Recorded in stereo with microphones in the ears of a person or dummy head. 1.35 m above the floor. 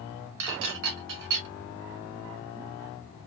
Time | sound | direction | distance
0.4 | dishes clattering | 65° right (ahead or behind) | 1.4 m